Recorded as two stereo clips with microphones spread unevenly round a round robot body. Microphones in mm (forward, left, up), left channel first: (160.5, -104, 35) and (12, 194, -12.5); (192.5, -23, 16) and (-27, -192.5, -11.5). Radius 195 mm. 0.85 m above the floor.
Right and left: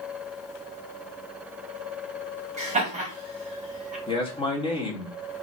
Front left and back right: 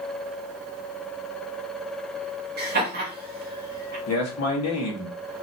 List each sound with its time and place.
2.6 s laughter: 175° left, 1.2 m
4.1 s a man speaking: 15° left, 1.7 m